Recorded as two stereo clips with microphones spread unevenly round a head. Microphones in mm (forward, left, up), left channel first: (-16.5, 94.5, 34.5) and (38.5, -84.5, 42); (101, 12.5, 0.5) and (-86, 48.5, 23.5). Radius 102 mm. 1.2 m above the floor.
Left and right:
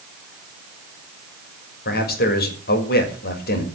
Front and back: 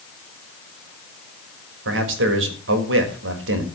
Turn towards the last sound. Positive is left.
turn(degrees=150)